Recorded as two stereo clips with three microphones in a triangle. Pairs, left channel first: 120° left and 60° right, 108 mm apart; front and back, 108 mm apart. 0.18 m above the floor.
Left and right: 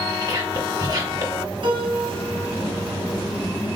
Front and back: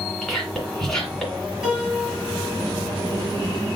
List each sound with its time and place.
0.2 s whispering: 85° right, 2.5 m
1.6 s a piano: 100° right, 2.5 m